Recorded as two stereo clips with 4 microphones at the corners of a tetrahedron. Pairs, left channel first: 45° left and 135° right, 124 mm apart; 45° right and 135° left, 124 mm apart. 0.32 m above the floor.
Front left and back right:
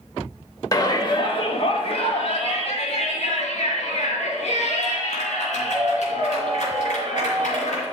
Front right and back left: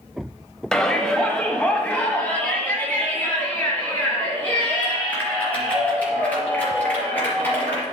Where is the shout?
35° left, 0.9 m; by 7.8 s 30° left, 4.5 m.